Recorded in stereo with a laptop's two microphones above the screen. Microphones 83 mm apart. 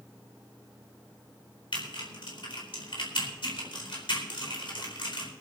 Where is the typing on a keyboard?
85° left, 3.5 m.